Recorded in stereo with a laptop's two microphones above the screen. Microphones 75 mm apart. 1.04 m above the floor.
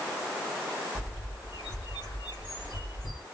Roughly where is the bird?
Left.